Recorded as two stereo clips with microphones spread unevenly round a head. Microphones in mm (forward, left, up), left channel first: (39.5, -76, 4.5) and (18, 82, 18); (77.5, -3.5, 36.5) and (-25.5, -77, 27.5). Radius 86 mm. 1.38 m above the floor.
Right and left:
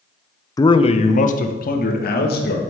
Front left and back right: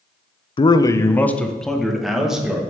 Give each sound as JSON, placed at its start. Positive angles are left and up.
{"t": 0.6, "sound": "a man speaking", "azimuth_deg": -15, "distance_m": 0.6}